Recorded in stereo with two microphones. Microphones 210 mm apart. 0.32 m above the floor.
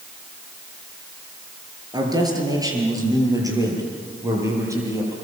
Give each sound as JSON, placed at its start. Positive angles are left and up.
{"t": 1.9, "sound": "a man speaking", "side_deg": -20, "distance_m": 7.0}